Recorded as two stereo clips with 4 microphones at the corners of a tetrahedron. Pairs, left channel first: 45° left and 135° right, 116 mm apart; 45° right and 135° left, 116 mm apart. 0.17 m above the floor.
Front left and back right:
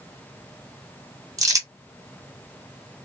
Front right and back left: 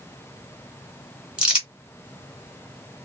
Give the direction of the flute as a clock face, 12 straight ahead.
No flute in this recording.